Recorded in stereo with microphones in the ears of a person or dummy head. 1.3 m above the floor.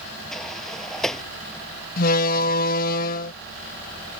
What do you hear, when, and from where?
0.3 s a sliding door: centre (ahead or behind)
2.0 s a door slam: 50° left (ahead or behind)